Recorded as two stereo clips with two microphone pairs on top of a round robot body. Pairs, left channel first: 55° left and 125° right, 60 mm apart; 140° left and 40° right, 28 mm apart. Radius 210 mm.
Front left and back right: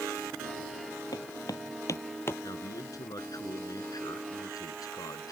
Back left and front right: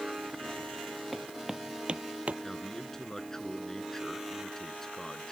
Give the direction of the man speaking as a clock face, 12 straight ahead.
10 o'clock.